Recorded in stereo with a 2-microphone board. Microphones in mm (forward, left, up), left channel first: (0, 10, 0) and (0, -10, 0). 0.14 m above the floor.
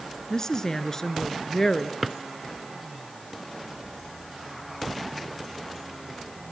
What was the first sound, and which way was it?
A woman speaking, 35° left (ahead or behind).